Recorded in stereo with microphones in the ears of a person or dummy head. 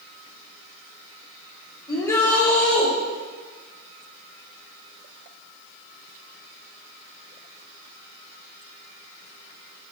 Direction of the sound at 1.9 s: 20° left (ahead or behind).